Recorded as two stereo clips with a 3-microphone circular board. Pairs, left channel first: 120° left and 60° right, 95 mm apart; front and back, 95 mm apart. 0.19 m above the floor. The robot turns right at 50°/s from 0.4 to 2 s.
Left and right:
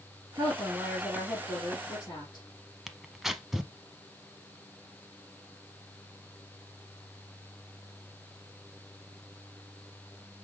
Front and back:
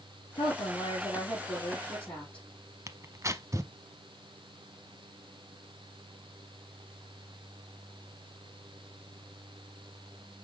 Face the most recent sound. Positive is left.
turn(degrees=-145)